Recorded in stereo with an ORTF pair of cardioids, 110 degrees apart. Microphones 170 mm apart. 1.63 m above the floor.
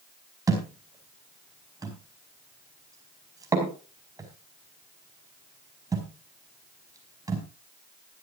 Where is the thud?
20° right, 4.5 m.